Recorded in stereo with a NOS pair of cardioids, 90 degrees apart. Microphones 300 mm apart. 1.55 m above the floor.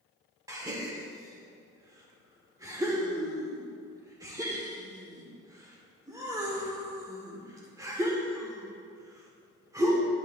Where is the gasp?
10° right, 1.6 m.